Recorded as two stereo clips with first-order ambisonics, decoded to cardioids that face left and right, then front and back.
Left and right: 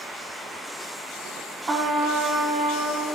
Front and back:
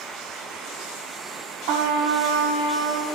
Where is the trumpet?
160° right, 1.2 m.